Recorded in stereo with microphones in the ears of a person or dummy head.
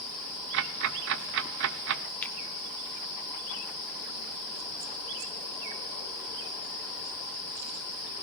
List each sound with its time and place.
0.5 s ticking: 60° right (ahead or behind), 0.7 m
2.2 s a finger snap: 10° left (ahead or behind), 1.6 m